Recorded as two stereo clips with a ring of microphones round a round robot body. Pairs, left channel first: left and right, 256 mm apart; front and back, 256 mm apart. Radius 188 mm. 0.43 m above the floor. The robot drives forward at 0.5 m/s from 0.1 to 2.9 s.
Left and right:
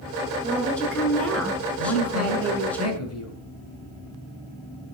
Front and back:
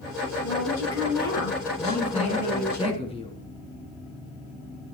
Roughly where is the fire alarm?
No fire alarm in this recording.